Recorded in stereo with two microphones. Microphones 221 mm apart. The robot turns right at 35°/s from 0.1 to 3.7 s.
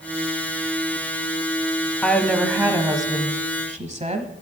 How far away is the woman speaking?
About 1.2 m.